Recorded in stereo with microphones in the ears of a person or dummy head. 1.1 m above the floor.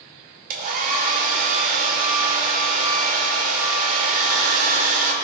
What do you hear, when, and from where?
0.5 s a hair dryer: 50° right (ahead or behind), 2 m